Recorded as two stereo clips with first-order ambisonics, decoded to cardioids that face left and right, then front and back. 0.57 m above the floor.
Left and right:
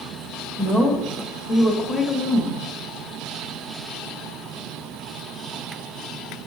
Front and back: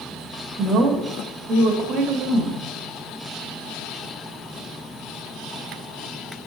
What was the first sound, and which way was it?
A woman speaking, 165° left.